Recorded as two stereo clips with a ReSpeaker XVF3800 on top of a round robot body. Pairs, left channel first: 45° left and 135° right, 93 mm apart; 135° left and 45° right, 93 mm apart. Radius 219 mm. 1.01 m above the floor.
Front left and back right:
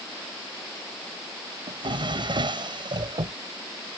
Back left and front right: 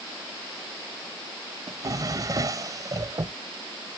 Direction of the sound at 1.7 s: 100° right.